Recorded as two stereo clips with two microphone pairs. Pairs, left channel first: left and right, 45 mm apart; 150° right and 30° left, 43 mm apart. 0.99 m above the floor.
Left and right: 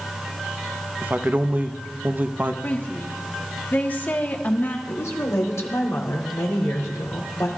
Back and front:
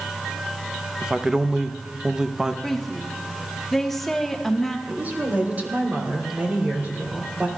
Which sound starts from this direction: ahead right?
A man speaking, at 1.0 s.